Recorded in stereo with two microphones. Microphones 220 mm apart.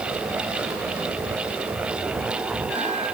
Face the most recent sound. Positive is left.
No sound to turn to.